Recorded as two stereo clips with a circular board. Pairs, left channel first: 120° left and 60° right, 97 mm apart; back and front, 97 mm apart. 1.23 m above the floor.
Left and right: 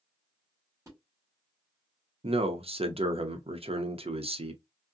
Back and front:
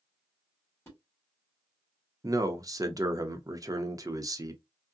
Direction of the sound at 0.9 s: 120° right.